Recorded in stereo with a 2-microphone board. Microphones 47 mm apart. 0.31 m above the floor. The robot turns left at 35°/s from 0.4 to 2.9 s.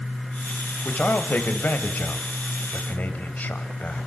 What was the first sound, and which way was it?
A man speaking, 135° left.